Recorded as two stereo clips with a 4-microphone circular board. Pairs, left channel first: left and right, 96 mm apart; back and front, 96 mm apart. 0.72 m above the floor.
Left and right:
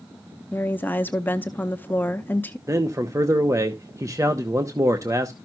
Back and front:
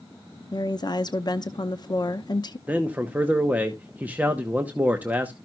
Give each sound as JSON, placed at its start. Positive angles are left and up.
{"t": 0.5, "sound": "a woman speaking", "azimuth_deg": 155, "distance_m": 0.7}
{"t": 2.7, "sound": "a man speaking", "azimuth_deg": -65, "distance_m": 0.9}